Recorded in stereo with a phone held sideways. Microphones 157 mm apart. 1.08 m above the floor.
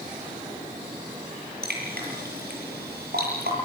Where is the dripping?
85° right, 9 m.